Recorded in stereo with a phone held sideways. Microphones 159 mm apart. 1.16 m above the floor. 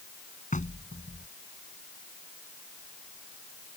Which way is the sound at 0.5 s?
55° left (ahead or behind).